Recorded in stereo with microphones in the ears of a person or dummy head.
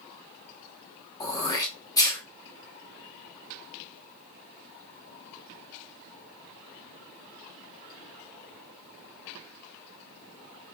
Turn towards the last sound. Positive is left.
turn(degrees=15)  # may be behind; listen again after turning